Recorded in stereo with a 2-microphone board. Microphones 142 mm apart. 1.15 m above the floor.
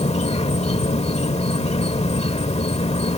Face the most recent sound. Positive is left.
turn(degrees=50)  # may be behind; listen again after turning